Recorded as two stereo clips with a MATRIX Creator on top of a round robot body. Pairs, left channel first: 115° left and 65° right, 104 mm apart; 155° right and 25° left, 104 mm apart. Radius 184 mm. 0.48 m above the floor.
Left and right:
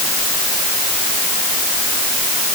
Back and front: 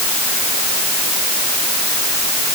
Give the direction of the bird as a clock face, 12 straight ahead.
No bird in this recording.